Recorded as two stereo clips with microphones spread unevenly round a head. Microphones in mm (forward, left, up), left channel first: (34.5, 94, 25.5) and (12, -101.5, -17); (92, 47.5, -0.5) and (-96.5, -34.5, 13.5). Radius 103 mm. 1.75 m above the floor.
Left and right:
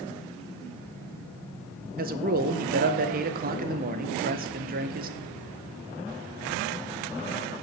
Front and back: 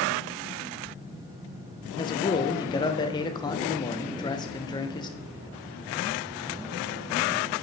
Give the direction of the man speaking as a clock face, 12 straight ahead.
2 o'clock.